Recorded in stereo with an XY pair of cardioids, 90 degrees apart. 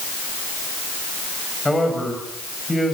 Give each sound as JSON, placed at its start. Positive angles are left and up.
{"t": 1.6, "sound": "a man speaking", "azimuth_deg": 10, "distance_m": 8.0}